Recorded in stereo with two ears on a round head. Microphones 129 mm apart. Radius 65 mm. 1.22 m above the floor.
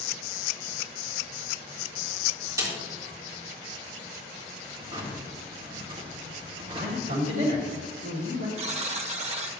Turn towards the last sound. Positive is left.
turn(degrees=-45)  # may be behind; listen again after turning